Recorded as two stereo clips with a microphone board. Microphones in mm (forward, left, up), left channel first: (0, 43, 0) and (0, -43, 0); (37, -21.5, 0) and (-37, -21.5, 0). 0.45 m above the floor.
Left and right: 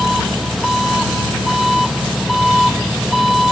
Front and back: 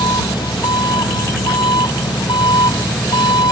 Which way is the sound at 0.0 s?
Straight ahead.